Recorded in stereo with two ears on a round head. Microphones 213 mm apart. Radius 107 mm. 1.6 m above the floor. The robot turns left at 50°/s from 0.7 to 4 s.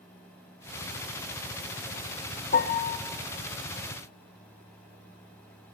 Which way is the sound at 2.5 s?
35° left (ahead or behind).